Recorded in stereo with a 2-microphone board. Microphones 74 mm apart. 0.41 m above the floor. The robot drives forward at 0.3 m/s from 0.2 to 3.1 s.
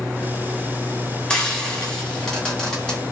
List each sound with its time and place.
1.3 s frying: 15° left (ahead or behind), 0.8 m; by 3.0 s 10° left (ahead or behind), 1.3 m